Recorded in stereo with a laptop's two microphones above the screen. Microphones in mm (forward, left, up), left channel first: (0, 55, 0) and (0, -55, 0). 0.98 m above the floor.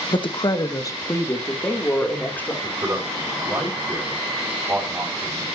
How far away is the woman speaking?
About 0.9 m.